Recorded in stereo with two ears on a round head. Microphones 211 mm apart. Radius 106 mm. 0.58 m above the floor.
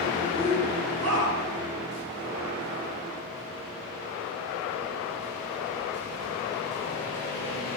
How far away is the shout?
About 4 m.